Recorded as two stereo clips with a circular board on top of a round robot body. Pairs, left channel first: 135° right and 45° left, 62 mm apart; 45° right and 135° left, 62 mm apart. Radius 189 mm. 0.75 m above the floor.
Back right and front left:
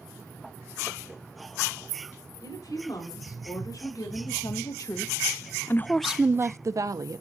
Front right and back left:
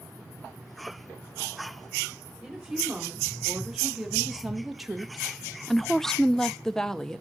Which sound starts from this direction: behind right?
A woman speaking, at 2.4 s.